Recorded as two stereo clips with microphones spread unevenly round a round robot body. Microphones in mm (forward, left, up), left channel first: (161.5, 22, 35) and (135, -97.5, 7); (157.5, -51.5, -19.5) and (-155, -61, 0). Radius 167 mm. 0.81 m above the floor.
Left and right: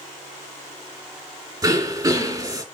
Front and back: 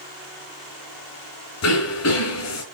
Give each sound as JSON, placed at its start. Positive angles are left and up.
{"t": 1.6, "sound": "throat clearing", "azimuth_deg": -40, "distance_m": 4.0}